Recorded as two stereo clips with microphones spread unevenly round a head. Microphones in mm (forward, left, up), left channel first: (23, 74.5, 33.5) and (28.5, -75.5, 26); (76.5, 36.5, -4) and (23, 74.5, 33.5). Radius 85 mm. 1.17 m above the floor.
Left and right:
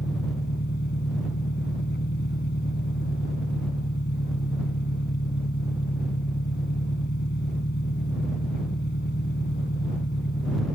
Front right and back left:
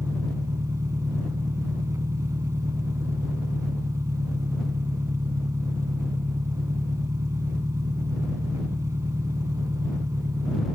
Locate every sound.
0.0 s an engine running: 125° left